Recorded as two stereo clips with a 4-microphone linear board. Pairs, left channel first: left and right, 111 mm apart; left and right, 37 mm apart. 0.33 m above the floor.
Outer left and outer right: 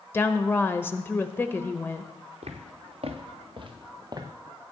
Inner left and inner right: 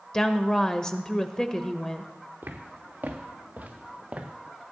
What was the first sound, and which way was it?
A woman speaking, 20° left (ahead or behind).